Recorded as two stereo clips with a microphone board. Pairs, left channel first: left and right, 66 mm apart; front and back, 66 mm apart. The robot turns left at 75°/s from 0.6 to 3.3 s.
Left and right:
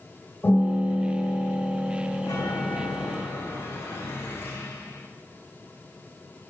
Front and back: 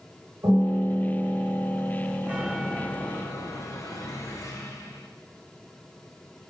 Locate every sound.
0.4 s a piano: 160° left, 8 m; by 3.2 s 40° right, 8 m
2.2 s a chime: 120° left, 3 m; by 5.1 s 40° left, 3 m